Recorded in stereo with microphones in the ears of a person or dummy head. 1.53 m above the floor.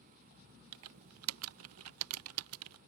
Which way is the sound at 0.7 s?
80° right.